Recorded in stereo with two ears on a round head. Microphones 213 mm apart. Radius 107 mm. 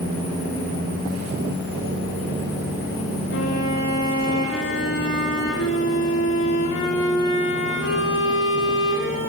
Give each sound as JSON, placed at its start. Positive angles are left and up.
{"t": 3.3, "sound": "a violin", "side_deg": 55, "distance_m": 10.0}